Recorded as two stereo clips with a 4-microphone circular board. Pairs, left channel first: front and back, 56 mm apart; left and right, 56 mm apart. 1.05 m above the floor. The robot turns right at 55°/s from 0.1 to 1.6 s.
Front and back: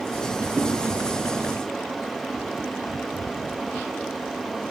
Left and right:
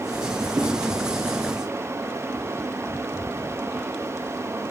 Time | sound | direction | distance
0.6 | a thud | 115° right | 1.6 m